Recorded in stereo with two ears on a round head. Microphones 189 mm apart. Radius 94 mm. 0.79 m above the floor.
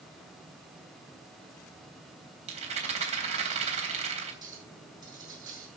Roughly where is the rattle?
Right.